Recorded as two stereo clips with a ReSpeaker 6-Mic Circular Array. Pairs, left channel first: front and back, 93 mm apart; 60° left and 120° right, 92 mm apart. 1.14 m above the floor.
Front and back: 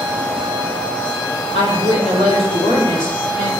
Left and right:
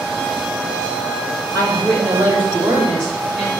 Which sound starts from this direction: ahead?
A woman speaking, at 1.5 s.